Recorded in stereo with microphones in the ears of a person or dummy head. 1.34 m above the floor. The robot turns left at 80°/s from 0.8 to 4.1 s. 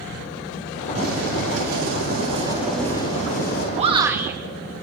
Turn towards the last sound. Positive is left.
turn(degrees=-10)  # may be behind; listen again after turning